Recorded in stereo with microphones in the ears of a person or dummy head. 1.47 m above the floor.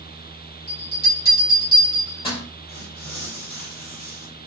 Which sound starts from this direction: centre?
Tearing paper, at 2.7 s.